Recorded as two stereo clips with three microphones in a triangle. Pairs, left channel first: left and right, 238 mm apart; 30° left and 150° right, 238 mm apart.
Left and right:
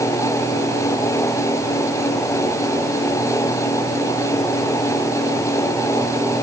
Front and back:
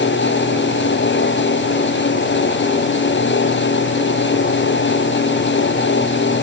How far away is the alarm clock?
No alarm clock in this recording.